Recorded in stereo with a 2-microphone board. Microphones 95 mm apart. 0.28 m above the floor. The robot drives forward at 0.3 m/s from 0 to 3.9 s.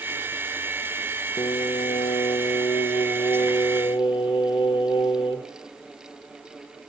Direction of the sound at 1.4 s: 70° left (ahead or behind).